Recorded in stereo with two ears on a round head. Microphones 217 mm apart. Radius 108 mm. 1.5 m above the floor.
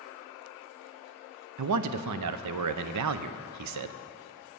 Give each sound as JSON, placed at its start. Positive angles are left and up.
{"t": 1.6, "sound": "a man speaking", "side_deg": -75, "distance_m": 0.5}